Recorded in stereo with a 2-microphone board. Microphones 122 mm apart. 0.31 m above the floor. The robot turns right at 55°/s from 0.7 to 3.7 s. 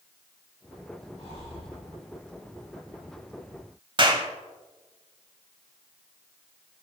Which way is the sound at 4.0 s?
45° right (ahead or behind).